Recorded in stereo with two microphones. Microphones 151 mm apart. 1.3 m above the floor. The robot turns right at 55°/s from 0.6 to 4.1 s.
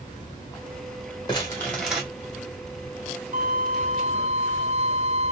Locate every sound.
1.3 s crumpling: 150° left, 1.4 m; by 2.0 s 170° right, 1.4 m
3.3 s a violin: 95° right, 0.7 m; by 5.3 s 50° right, 0.7 m